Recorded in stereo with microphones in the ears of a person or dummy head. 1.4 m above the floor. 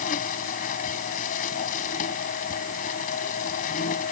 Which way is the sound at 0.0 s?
45° left (ahead or behind).